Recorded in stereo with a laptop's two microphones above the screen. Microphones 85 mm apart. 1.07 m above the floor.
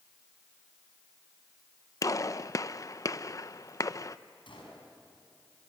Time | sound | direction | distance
2.0 | a gunshot | 40° left (ahead or behind) | 0.6 m
4.5 | a gunshot | 75° left (ahead or behind) | 5.5 m